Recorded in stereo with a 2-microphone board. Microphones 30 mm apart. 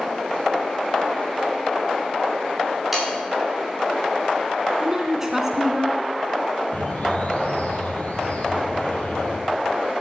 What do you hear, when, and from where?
2.9 s sawing: 5° right (ahead or behind), 5 m
4.8 s a woman speaking: 15° right (ahead or behind), 1.2 m
6.7 s a bird: 55° left (ahead or behind), 3 m